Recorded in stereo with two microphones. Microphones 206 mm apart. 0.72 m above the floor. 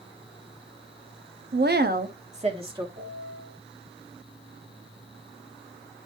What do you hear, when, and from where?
1.5 s a woman speaking: 50° right (ahead or behind), 0.9 m; by 2.9 s 20° right (ahead or behind), 1.6 m
3.0 s a piano: 50° right (ahead or behind), 5 m